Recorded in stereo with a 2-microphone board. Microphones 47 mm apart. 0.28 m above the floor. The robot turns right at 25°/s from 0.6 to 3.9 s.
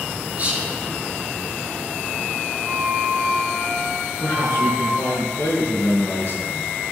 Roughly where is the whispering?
Right.